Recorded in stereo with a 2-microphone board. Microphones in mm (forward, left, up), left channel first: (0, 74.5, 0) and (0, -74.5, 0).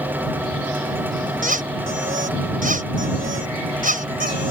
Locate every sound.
1.4 s a squeak: 60° right (ahead or behind)